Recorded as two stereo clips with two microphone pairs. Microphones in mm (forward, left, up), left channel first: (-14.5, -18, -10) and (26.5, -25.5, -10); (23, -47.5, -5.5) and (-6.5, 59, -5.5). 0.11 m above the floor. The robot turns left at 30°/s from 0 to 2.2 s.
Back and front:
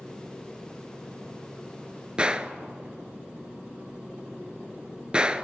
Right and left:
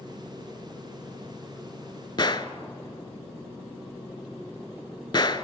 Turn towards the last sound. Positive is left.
turn(degrees=-65)